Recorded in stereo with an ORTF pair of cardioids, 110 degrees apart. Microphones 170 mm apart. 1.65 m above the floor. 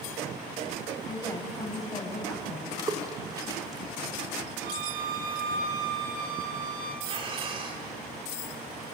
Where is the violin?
60° right, 3.5 m.